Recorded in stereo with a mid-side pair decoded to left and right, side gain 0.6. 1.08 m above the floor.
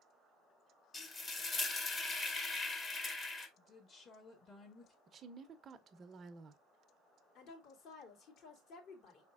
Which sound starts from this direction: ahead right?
A woman speaking, at 5.1 s.